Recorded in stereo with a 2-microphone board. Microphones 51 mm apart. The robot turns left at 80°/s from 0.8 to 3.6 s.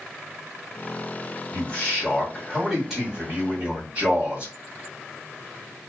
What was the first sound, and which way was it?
A man speaking, 30° left (ahead or behind).